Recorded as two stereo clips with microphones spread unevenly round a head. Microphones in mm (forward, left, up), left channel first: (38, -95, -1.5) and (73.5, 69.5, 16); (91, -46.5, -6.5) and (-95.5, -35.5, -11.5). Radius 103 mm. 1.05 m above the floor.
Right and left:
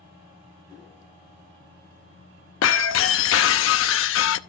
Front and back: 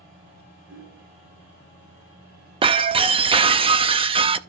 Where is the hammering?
140° left, 9.5 m.